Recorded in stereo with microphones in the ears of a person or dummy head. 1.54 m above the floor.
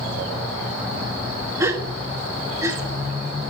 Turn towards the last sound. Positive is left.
turn(degrees=-15)  # may be behind; listen again after turning